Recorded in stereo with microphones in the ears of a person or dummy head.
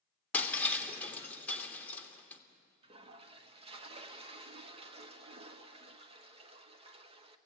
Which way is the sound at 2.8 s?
35° right (ahead or behind).